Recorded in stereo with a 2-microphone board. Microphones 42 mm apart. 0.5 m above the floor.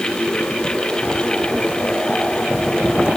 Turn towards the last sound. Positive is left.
No sound to turn to.